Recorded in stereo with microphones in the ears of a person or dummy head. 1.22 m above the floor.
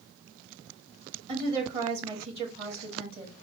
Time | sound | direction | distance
1.3 | a woman speaking | 30° right (ahead or behind) | 1.8 m